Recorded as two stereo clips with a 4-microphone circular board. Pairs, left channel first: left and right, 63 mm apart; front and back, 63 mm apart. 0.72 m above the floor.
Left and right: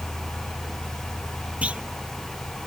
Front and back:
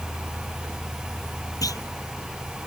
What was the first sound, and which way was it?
A clunk, 20° right.